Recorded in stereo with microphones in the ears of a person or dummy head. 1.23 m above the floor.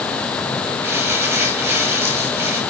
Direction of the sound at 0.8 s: 15° right (ahead or behind).